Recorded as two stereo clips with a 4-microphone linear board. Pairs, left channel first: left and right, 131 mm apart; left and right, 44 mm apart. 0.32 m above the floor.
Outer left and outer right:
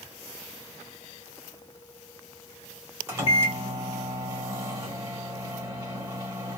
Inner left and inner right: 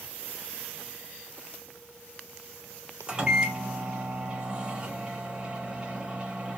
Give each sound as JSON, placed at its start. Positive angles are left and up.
{"t": 3.1, "sound": "a microwave", "side_deg": -20, "distance_m": 0.9}